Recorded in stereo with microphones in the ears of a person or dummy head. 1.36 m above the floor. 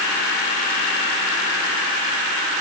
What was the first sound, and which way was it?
Only background noise.